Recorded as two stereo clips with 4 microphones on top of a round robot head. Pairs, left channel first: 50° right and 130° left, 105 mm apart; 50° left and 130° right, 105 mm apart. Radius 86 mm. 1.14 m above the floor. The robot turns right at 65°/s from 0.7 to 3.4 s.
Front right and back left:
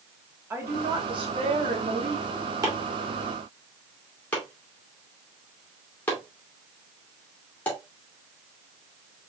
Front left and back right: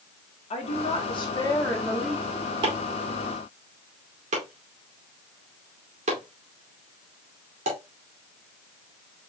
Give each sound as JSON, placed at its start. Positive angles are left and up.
{"t": 0.5, "sound": "a woman speaking", "azimuth_deg": 60, "distance_m": 2.0}
{"t": 2.6, "sound": "chopping", "azimuth_deg": -175, "distance_m": 2.5}